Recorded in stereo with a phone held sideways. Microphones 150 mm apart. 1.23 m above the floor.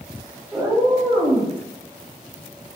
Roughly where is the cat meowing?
Centre.